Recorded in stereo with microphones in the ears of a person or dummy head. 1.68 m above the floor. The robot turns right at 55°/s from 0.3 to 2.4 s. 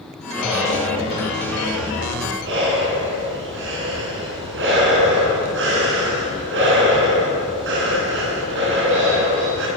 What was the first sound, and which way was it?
Breathing, 175° left.